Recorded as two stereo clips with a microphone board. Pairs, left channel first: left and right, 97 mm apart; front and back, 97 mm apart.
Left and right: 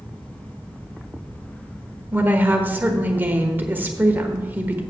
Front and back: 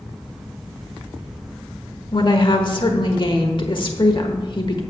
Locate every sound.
2.1 s a woman speaking: 20° right, 1.2 m